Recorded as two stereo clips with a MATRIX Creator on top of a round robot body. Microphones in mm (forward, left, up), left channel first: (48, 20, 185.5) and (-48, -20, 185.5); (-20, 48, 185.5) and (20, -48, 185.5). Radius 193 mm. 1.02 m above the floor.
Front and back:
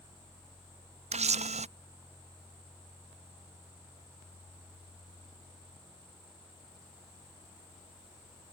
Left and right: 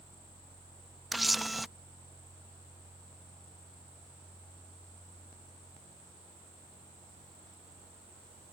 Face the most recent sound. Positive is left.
turn(degrees=-155)